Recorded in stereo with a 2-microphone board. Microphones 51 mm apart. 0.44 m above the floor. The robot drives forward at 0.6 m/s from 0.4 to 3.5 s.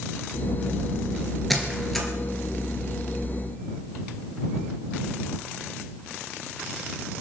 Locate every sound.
1.5 s a squeak: 5° left (ahead or behind), 2.5 m